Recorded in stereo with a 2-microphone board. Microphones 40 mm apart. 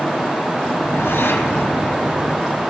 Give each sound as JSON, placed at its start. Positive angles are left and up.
{"t": 0.7, "sound": "a whoosh", "side_deg": 65, "distance_m": 3.5}